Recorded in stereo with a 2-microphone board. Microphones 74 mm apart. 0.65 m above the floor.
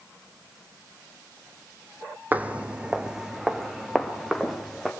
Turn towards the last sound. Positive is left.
turn(degrees=0)  # may be behind; listen again after turning